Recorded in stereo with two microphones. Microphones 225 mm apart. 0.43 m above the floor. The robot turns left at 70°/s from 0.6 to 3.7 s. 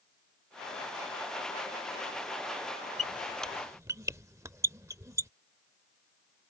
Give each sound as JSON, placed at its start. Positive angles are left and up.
{"t": 3.0, "sound": "a squeak", "side_deg": 30}